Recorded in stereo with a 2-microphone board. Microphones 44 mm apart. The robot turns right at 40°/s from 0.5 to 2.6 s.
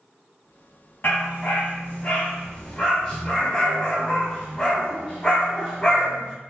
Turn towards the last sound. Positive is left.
turn(degrees=160)